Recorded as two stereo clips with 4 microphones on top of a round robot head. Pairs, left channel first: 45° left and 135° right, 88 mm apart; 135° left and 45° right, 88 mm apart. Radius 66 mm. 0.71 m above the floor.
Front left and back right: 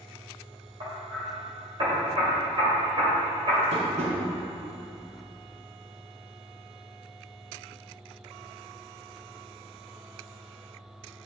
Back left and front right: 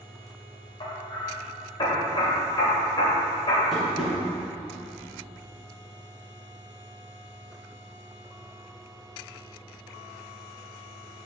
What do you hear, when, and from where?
0.8 s hammering: 175° right, 2.5 m
3.7 s tapping: 135° right, 2.5 m